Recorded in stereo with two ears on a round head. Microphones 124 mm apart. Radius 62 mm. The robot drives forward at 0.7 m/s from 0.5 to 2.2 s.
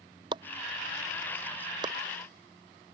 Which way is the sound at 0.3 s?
35° right (ahead or behind).